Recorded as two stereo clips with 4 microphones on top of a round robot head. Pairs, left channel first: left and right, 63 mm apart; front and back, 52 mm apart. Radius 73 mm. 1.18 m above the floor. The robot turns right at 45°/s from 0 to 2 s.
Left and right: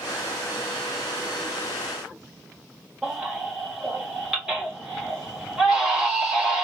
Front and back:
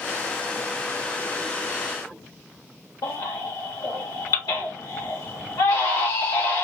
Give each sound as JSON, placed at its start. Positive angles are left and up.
{"t": 3.0, "sound": "a baby crying", "azimuth_deg": -10, "distance_m": 1.3}